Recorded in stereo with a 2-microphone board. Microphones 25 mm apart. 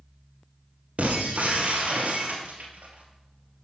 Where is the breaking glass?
65° right (ahead or behind), 1.7 m.